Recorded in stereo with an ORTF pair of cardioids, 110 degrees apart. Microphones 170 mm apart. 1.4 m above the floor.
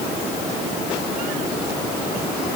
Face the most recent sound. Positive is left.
No sound to turn to.